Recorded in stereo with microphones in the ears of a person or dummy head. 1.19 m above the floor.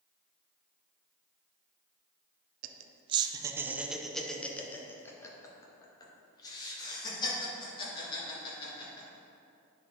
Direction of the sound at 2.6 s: 45° right (ahead or behind).